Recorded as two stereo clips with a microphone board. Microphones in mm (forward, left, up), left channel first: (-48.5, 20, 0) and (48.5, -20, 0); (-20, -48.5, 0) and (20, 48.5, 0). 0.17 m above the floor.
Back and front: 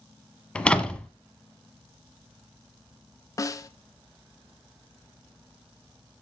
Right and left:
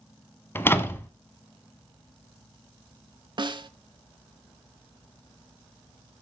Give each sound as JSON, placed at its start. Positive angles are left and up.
{"t": 0.6, "sound": "a door slam", "azimuth_deg": -135, "distance_m": 1.0}
{"t": 3.4, "sound": "a snare drum", "azimuth_deg": 105, "distance_m": 0.6}